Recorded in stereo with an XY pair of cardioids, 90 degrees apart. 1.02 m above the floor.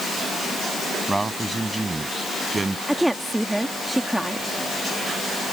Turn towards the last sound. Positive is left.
turn(degrees=-10)